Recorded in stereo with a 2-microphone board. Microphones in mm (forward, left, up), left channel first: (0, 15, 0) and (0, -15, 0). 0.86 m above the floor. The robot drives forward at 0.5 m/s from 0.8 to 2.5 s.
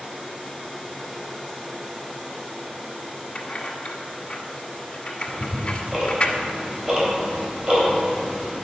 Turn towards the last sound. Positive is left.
turn(degrees=-40)  # may be behind; listen again after turning